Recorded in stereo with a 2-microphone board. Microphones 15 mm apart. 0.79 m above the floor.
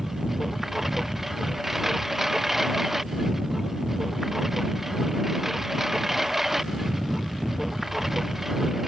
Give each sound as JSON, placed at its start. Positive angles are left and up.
{"t": 0.0, "sound": "a lawn mower", "side_deg": -20}